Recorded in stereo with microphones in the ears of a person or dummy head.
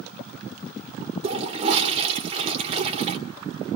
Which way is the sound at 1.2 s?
35° right (ahead or behind).